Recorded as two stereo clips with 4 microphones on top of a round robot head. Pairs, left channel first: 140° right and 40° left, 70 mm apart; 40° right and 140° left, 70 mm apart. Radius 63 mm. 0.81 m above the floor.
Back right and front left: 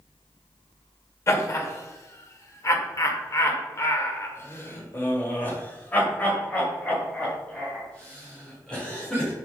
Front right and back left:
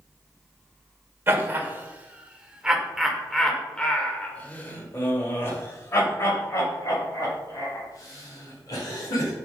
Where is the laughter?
170° right, 1.9 m; by 9.3 s 65° right, 4 m.